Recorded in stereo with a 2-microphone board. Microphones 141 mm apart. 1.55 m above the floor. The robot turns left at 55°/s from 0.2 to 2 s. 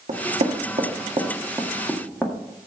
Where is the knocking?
70° right (ahead or behind), 1.8 m; by 2.3 s 5° left (ahead or behind), 1.8 m.